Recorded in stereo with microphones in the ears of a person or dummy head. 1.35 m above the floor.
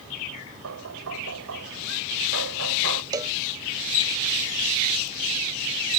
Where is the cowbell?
20° right (ahead or behind).